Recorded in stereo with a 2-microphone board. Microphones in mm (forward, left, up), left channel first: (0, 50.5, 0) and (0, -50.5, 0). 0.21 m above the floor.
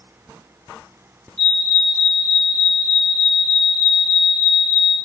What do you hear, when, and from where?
1.4 s a fire alarm: 10° left (ahead or behind), 2 m